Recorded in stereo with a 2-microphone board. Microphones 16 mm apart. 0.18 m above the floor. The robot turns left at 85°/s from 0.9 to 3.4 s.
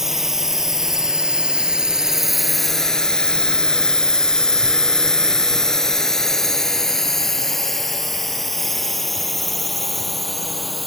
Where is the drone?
20° right (ahead or behind); by 10.9 s 5° left (ahead or behind).